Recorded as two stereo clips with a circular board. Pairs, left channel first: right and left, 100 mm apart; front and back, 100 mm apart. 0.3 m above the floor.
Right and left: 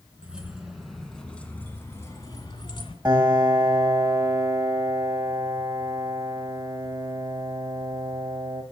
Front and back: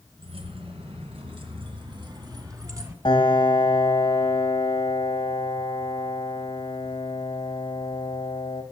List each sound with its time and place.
0.2 s keys jangling: 170° left, 3 m; by 3.0 s 120° right, 2.5 m
3.0 s a piano: 40° left, 2.5 m